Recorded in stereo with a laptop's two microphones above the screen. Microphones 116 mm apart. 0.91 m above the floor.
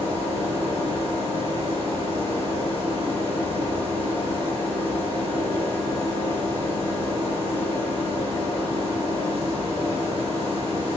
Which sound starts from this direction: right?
A machine running, at 0.0 s.